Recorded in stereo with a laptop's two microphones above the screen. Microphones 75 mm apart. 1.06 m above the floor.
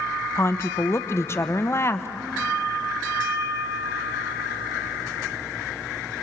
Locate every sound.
0.3 s a woman speaking: 35° left (ahead or behind), 0.7 m